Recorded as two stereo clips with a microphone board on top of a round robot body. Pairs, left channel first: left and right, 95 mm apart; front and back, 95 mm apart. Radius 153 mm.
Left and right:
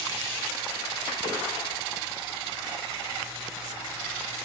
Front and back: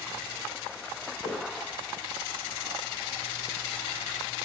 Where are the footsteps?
40° left, 1.2 m.